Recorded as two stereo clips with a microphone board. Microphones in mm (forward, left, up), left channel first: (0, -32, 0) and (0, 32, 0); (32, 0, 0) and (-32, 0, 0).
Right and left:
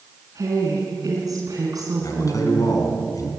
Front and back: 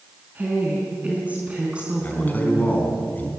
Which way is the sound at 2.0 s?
65° right.